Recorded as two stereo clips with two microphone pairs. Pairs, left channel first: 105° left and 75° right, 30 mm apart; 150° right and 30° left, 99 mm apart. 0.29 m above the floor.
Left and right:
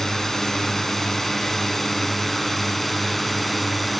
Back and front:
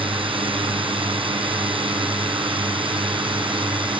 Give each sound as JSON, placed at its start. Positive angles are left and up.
{"t": 0.0, "sound": "a drone", "azimuth_deg": 30}